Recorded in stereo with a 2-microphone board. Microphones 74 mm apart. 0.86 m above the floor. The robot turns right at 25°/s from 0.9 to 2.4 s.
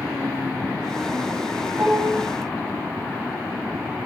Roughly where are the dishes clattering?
Right.